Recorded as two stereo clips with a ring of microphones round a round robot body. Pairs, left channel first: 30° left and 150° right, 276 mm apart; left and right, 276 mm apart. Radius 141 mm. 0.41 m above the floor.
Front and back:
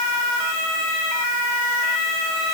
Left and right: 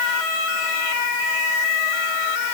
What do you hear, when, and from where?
Only background noise.